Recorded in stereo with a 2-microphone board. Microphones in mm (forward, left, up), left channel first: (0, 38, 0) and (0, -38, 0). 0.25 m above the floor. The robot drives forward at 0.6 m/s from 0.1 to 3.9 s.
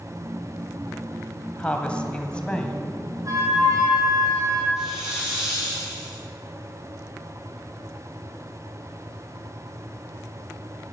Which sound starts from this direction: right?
A flute, at 3.2 s.